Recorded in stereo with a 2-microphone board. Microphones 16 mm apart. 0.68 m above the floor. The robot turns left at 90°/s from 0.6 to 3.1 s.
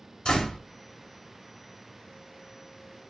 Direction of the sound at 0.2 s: 60° left (ahead or behind).